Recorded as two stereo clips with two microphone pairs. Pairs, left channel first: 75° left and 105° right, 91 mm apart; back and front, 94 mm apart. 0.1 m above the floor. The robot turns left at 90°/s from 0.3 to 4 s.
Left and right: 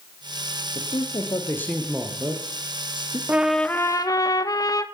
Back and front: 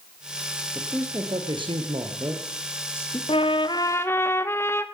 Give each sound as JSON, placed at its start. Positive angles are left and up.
{"t": 0.8, "sound": "a man speaking", "azimuth_deg": 85, "distance_m": 2.5}
{"t": 3.3, "sound": "a trumpet", "azimuth_deg": 180, "distance_m": 0.8}